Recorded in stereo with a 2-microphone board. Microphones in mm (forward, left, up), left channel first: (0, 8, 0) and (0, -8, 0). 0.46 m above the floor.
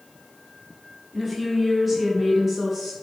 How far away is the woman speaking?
About 1.3 m.